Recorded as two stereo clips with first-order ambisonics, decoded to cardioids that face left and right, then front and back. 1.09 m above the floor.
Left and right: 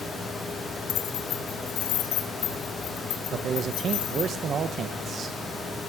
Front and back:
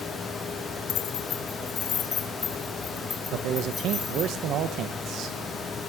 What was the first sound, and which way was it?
Keys jangling, 45° left.